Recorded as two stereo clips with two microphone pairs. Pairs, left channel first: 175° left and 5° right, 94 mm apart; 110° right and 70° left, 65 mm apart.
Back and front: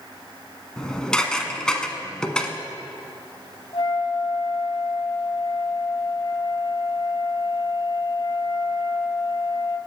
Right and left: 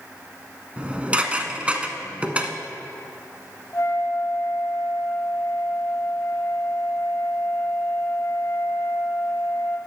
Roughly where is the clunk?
No clunk in this recording.